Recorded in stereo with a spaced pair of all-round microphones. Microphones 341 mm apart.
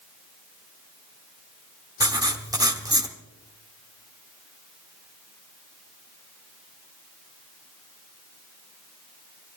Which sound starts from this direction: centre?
Writing, at 2.0 s.